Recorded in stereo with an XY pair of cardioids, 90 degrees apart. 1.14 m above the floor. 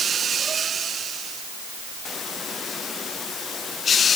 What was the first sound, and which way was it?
Only background noise.